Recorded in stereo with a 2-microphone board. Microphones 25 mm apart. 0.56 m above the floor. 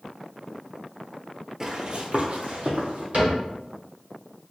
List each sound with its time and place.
1.6 s running footsteps: 25° right (ahead or behind), 0.6 m; by 3.0 s 70° right (ahead or behind), 1.3 m
3.1 s a cupboard door: 60° right (ahead or behind), 1.9 m